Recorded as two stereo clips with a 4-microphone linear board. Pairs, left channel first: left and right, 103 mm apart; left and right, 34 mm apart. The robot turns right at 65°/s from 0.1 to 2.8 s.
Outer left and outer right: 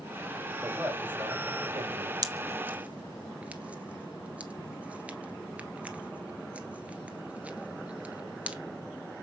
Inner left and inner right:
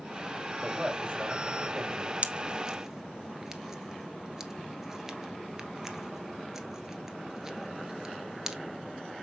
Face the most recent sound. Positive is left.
turn(degrees=-15)  # may be behind; listen again after turning